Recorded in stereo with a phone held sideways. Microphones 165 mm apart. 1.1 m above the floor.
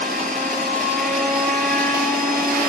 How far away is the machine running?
About 6.5 m.